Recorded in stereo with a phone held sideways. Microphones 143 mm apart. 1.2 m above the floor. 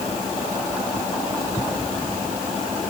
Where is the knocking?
No knocking in this recording.